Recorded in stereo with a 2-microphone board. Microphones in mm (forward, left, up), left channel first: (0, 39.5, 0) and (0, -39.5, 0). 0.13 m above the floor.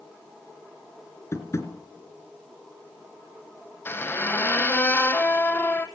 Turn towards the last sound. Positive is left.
turn(degrees=30)  # may be behind; listen again after turning